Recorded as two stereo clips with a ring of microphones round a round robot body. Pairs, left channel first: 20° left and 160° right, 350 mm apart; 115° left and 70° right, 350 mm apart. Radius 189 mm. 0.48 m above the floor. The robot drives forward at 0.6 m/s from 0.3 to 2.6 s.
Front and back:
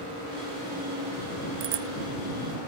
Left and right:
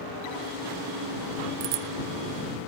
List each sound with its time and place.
1.6 s a bicycle bell: 105° right